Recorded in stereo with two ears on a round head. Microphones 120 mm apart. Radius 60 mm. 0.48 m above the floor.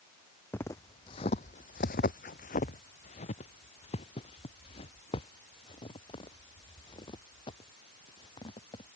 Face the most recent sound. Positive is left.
turn(degrees=35)  # may be behind; listen again after turning